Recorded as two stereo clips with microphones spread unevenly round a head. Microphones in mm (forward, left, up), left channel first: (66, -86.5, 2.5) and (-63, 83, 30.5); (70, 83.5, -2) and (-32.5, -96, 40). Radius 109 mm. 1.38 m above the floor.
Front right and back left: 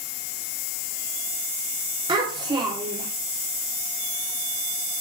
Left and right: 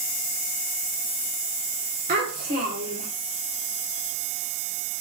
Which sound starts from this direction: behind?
A child speaking, at 2.1 s.